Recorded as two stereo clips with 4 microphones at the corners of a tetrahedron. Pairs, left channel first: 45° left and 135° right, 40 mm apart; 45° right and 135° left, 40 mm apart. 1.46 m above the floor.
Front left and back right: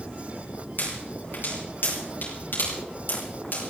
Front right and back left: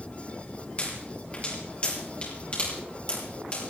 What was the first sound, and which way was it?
A pop, 10° left.